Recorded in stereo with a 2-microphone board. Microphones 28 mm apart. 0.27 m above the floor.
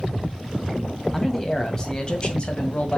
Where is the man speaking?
15° left (ahead or behind), 1.8 m; by 3.0 s 45° left (ahead or behind), 1.8 m.